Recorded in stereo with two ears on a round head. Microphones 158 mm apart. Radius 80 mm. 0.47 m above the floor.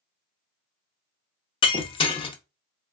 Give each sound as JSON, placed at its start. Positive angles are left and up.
{"t": 1.6, "sound": "breaking glass", "side_deg": 30, "distance_m": 0.6}